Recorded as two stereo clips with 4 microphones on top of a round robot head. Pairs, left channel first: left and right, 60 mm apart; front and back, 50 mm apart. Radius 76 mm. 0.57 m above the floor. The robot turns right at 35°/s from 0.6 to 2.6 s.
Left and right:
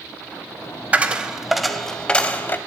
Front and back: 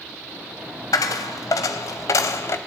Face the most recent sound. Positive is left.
turn(degrees=35)